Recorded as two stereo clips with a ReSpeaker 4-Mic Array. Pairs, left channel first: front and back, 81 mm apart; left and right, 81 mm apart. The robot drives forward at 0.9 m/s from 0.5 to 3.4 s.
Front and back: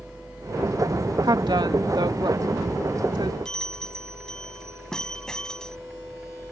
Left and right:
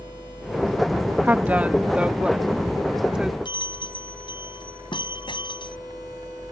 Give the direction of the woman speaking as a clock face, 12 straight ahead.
5 o'clock.